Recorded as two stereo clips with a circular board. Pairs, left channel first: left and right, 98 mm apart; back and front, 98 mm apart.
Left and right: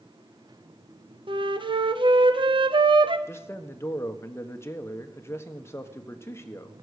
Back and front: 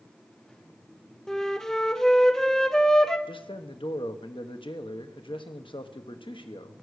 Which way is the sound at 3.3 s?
155° left.